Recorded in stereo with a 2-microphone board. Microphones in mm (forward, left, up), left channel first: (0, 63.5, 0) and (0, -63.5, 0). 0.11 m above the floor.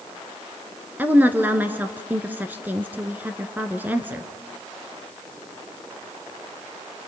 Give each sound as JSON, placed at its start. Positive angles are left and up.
{"t": 1.0, "sound": "a woman speaking", "side_deg": -15, "distance_m": 1.3}